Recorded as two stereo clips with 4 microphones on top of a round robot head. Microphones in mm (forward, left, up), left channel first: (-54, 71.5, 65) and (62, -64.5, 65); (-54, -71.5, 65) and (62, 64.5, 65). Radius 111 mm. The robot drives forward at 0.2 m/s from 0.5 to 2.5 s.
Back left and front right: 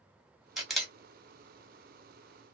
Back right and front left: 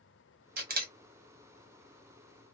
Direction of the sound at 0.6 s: 40° left.